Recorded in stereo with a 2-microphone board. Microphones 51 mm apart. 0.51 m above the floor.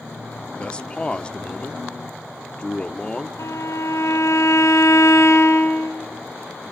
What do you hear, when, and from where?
0.6 s a man speaking: 20° left (ahead or behind), 0.8 m
3.4 s a violin: 80° left, 3 m